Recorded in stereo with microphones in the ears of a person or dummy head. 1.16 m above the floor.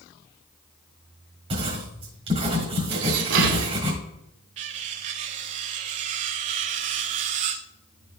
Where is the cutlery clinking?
40° right (ahead or behind), 0.6 m.